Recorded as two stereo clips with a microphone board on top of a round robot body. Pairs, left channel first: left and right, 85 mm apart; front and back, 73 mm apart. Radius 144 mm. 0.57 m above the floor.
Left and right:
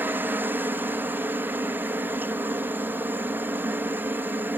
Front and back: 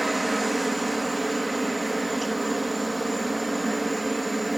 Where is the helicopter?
90° right.